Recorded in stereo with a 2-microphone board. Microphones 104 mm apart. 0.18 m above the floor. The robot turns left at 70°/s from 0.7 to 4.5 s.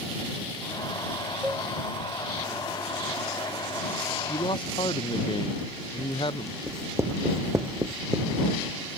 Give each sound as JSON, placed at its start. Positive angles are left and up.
{"t": 1.4, "sound": "a cowbell", "side_deg": -10}
{"t": 4.3, "sound": "a man speaking", "side_deg": 65}
{"t": 6.7, "sound": "writing", "side_deg": -25}